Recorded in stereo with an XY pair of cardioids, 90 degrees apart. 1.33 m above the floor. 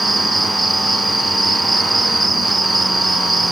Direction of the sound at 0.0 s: 15° right.